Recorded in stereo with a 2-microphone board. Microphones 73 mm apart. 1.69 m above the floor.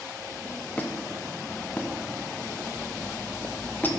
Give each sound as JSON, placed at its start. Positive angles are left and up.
{"t": 0.8, "sound": "a squeak", "side_deg": 25, "distance_m": 0.8}